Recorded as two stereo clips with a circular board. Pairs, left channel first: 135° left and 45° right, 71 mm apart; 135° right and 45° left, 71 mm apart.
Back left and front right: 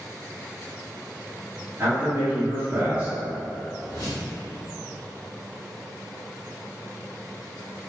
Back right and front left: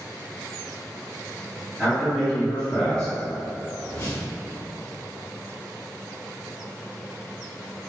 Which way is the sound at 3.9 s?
175° left.